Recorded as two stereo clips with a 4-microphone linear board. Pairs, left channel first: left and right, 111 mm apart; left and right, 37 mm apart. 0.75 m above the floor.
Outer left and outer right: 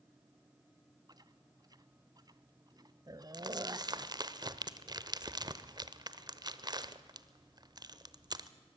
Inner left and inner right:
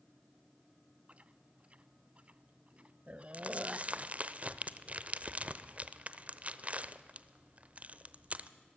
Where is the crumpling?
40° right (ahead or behind), 0.8 m.